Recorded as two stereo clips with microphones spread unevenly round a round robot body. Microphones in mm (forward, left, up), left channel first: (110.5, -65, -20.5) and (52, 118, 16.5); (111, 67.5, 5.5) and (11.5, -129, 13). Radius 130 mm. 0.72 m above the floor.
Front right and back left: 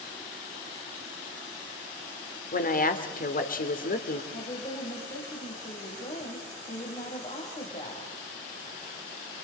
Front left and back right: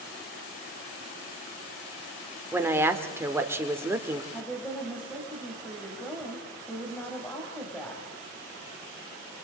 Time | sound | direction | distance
2.5 | a woman speaking | 40° right | 2 m
4.3 | a woman speaking | 20° right | 4.5 m